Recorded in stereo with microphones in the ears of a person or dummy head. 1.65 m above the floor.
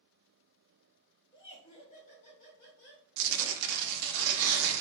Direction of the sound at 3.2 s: 70° right (ahead or behind).